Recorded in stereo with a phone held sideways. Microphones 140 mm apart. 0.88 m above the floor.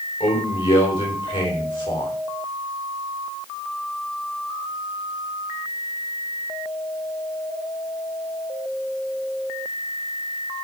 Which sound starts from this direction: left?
A man speaking, at 0.2 s.